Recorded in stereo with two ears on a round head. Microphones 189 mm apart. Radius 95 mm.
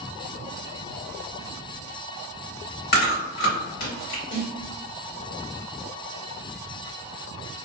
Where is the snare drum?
45° left (ahead or behind), 1.7 m.